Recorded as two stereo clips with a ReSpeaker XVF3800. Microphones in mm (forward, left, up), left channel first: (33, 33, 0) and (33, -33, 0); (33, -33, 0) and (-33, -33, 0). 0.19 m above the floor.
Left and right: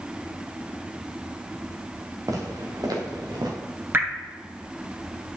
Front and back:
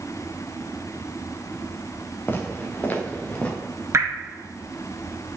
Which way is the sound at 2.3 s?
60° right.